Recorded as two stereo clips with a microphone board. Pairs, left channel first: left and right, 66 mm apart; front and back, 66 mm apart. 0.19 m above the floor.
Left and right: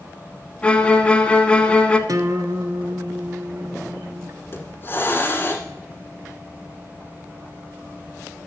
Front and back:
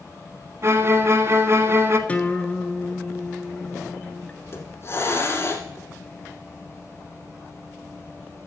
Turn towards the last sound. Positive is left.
turn(degrees=40)